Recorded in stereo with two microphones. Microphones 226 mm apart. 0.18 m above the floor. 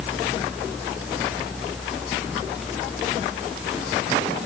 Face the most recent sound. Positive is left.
No sound to turn to.